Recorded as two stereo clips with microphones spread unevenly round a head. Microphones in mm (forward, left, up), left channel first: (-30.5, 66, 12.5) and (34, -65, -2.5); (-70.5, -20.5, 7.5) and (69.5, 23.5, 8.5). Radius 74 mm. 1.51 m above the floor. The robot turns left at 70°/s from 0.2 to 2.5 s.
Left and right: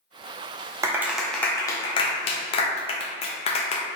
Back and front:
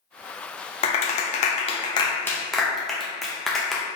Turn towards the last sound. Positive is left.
turn(degrees=110)